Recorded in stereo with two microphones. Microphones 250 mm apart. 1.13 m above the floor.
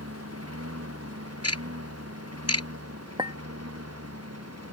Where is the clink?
15° right (ahead or behind).